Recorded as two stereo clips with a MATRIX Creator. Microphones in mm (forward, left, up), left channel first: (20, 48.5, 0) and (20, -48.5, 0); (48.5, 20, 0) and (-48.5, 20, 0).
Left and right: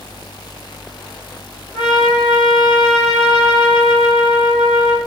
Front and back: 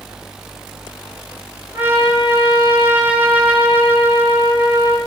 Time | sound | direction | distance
1.7 | a trumpet | 110° left | 5 m